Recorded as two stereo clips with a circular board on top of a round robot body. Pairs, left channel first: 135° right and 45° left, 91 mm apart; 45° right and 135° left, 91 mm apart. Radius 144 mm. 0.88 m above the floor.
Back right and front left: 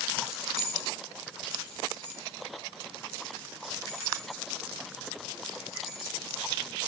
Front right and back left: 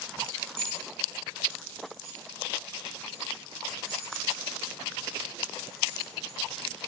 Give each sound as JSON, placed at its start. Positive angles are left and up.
{"t": 0.2, "sound": "keys jangling", "azimuth_deg": 160, "distance_m": 2.5}